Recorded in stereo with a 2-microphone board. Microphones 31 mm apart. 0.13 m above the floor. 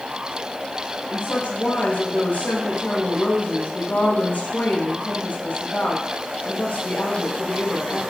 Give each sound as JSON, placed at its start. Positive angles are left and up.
{"t": 1.1, "sound": "a woman speaking", "side_deg": 75, "distance_m": 7.5}